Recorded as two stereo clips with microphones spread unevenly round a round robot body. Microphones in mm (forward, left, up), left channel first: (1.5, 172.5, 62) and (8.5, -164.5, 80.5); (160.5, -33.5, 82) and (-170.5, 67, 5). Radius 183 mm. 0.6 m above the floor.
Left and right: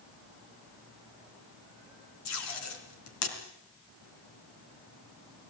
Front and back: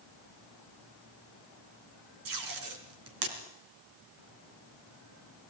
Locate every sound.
2.2 s tape being pulled: 135° left, 3.5 m